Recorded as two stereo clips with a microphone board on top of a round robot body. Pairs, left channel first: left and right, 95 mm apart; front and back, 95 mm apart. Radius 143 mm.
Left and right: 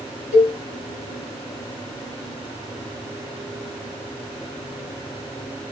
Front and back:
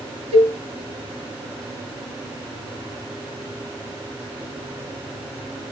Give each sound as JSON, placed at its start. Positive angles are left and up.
{"t": 0.3, "sound": "a cowbell", "azimuth_deg": -175, "distance_m": 1.2}